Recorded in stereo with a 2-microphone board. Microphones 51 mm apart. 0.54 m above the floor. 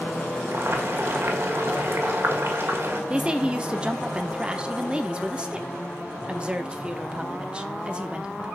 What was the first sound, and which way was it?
Boiling, 55° right (ahead or behind).